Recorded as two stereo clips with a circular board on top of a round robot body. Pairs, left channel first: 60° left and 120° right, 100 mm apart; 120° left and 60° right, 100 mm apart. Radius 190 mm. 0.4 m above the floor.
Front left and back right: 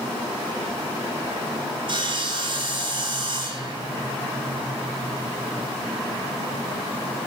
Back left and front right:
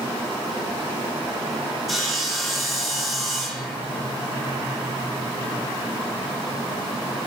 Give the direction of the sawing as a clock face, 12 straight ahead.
5 o'clock.